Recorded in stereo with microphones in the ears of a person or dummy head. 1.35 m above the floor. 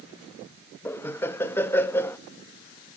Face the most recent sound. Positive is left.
turn(degrees=15)  # may be behind; listen again after turning